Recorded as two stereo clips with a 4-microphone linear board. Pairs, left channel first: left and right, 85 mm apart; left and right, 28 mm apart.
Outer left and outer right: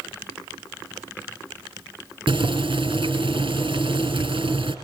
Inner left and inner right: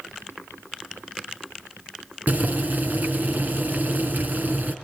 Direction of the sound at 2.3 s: 75° right (ahead or behind).